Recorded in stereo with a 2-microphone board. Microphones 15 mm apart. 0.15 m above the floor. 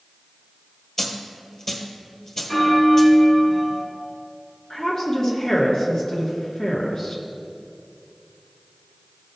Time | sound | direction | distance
1.0 | a dropped coin | 30° left (ahead or behind) | 1.4 m
2.5 | a bell | 20° left (ahead or behind) | 1.4 m
4.7 | a woman speaking | 50° left (ahead or behind) | 2.5 m